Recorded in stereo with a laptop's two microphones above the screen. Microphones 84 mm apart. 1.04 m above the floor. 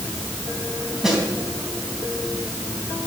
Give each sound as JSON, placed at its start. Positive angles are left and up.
{"t": 1.0, "sound": "a snare drum", "side_deg": -5, "distance_m": 3.0}